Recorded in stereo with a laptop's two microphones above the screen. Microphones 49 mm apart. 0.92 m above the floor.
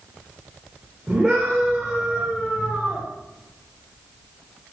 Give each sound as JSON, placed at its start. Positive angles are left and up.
{"t": 1.1, "sound": "a scream", "side_deg": -25, "distance_m": 2.5}